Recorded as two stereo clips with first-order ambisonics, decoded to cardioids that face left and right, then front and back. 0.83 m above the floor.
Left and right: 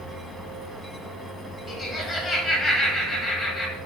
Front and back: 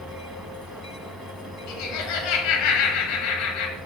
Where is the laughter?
20° left, 1.0 m.